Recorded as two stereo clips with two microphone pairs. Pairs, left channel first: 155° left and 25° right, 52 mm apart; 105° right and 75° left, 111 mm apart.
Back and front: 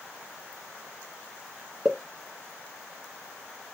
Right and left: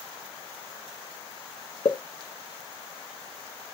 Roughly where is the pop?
Right.